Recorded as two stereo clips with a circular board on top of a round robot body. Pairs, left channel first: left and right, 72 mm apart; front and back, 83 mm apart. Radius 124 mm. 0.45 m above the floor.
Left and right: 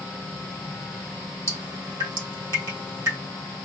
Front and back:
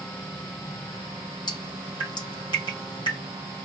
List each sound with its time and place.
1.5 s dripping: 35° right, 3 m